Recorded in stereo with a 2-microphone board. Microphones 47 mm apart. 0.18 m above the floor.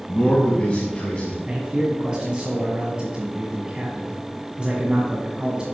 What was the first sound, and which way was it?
A man speaking, 30° left (ahead or behind).